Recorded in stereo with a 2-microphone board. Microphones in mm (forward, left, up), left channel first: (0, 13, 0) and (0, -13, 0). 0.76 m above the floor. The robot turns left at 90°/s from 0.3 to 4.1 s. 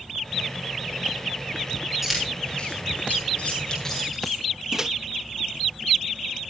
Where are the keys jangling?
5° right (ahead or behind), 7.5 m.